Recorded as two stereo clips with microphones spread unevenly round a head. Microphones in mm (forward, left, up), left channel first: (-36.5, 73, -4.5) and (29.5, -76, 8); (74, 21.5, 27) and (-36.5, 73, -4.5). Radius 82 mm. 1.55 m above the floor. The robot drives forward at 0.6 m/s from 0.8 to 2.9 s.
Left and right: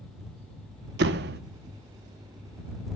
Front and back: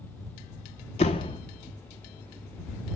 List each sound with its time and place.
1.0 s a door slam: 65° right, 0.9 m; by 1.4 s 80° right, 0.8 m